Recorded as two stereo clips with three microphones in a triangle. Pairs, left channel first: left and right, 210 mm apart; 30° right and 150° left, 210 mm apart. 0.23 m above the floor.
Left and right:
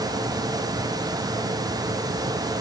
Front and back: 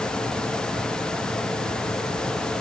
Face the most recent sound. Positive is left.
No sound to turn to.